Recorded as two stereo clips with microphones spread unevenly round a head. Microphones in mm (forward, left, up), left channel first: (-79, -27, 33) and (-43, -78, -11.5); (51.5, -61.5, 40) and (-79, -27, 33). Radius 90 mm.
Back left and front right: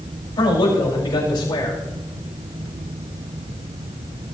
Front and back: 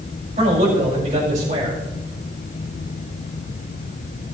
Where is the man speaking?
110° left, 6 m.